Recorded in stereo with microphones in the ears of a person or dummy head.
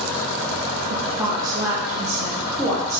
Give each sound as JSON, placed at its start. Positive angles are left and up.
{"t": 0.9, "sound": "a woman speaking", "side_deg": -20, "distance_m": 1.1}